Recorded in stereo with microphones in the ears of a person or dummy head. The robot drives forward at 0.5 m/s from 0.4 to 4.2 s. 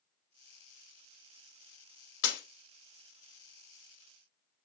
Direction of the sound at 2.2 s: 75° left (ahead or behind).